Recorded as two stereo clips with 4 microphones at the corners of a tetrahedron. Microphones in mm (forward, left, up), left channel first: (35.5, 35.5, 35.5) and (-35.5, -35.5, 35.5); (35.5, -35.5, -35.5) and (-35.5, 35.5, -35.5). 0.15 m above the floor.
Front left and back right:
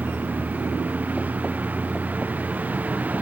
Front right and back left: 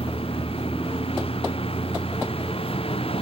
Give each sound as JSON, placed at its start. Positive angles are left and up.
{"t": 0.0, "sound": "a vehicle", "azimuth_deg": -60}